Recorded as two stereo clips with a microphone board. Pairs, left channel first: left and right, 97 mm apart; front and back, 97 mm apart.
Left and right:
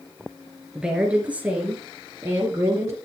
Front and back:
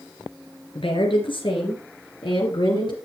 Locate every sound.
0.8 s a woman speaking: 10° right, 3 m; by 3.0 s 30° right, 3 m